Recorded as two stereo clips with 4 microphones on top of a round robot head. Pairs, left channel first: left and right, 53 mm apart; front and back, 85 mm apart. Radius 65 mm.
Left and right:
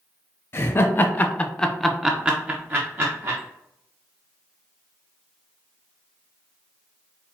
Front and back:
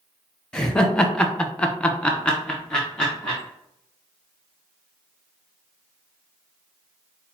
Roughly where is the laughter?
Left.